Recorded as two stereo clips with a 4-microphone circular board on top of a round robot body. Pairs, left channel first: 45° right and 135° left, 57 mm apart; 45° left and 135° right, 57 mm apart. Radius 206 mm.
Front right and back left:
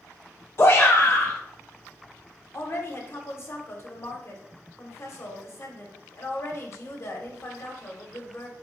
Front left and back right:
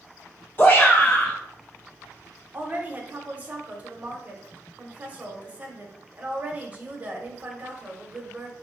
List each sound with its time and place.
0.6 s a shout: 5° right, 0.6 m
2.5 s a woman speaking: 75° right, 0.9 m